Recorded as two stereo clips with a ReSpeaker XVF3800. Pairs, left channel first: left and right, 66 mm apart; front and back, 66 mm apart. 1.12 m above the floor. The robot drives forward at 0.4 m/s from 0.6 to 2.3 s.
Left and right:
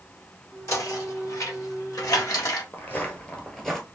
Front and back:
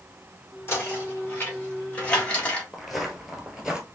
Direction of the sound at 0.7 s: 50° left.